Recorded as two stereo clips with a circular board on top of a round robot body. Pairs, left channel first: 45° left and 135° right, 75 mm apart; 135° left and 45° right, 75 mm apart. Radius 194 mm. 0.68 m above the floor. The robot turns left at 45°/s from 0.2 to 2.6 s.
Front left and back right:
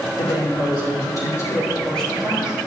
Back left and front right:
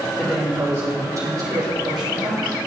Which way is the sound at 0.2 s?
45° left.